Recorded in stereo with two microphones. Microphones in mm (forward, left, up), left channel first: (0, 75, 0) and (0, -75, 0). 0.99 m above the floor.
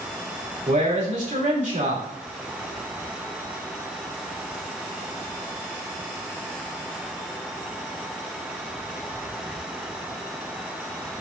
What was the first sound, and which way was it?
A man speaking, 55° right (ahead or behind).